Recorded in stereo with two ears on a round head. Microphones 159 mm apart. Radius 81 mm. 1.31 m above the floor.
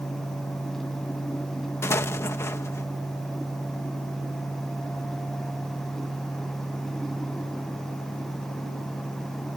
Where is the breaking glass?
I don't hear breaking glass.